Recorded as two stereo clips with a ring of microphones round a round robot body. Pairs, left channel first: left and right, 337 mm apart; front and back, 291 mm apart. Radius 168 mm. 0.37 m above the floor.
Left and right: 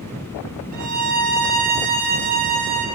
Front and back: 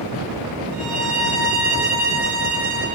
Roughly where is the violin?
Behind right.